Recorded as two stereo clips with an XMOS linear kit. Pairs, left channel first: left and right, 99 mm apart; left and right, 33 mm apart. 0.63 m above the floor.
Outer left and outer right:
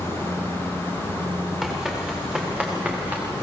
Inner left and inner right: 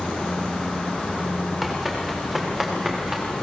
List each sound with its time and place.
1.6 s running footsteps: 5° right (ahead or behind), 7 m; by 3.2 s 20° right (ahead or behind), 5.5 m